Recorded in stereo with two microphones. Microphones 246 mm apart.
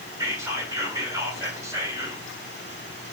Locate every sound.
0.2 s whispering: 10° right (ahead or behind), 2.5 m